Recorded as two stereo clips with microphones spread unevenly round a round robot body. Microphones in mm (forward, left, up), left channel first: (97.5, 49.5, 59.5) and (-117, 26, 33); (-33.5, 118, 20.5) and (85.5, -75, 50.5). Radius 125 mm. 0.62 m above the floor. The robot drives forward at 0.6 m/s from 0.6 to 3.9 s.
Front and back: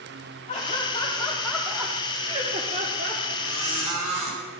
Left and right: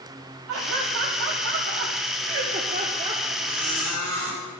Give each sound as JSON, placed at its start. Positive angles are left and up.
{"t": 0.5, "sound": "laughter", "azimuth_deg": -60, "distance_m": 1.4}
{"t": 3.4, "sound": "a squeak", "azimuth_deg": -145, "distance_m": 4.0}